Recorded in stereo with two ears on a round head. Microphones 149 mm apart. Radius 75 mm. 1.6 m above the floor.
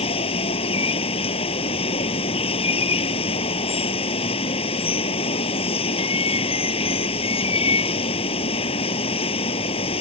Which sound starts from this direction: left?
Running water, at 0.0 s.